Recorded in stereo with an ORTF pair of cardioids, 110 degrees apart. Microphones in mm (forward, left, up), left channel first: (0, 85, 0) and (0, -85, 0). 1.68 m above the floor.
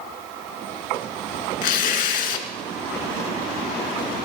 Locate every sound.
1.6 s tearing paper: 70° left, 1.9 m